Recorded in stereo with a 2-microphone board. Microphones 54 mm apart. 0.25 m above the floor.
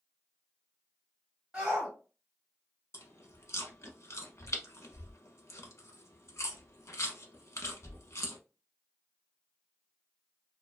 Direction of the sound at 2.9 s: 60° left (ahead or behind).